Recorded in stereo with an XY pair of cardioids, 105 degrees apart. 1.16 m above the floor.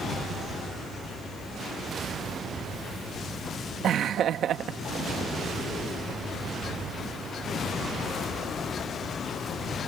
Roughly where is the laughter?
Ahead right.